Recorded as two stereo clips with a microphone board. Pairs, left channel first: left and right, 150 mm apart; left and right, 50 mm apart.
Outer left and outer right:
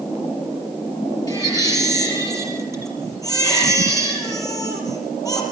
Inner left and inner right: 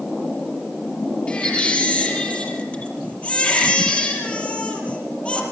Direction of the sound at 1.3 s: 25° left (ahead or behind).